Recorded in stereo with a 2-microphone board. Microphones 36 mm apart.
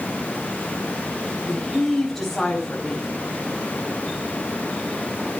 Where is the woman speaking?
10° left (ahead or behind), 4.5 m.